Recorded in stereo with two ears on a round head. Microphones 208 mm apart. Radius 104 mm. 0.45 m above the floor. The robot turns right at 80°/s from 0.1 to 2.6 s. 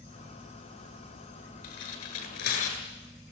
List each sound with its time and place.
1.6 s tearing paper: 70° left (ahead or behind), 8.5 m; by 2.8 s 35° left (ahead or behind), 8.5 m